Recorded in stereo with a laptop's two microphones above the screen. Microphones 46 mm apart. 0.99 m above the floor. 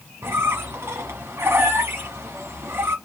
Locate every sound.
0.2 s a squeak: 60° right (ahead or behind), 1.0 m